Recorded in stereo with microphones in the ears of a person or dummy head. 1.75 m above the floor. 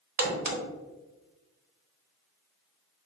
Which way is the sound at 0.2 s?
50° right (ahead or behind).